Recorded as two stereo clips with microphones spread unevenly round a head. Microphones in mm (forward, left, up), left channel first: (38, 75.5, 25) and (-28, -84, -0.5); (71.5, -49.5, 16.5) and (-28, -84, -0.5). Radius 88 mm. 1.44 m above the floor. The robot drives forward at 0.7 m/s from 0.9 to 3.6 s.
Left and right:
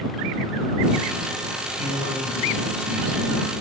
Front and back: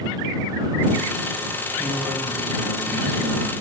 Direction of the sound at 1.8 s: 120° left.